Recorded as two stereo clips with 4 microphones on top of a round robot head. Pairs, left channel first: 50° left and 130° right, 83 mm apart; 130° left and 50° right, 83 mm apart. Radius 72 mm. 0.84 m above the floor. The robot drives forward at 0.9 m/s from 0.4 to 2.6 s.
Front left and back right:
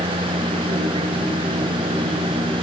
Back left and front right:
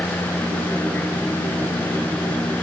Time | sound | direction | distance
0.0 | a vehicle | 155° right | ?